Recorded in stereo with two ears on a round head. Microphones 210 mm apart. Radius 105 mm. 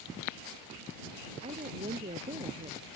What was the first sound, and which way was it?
A woman speaking, 30° right (ahead or behind).